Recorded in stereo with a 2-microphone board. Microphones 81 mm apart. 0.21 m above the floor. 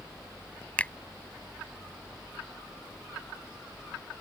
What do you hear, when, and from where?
0.8 s a finger snap: 15° left (ahead or behind)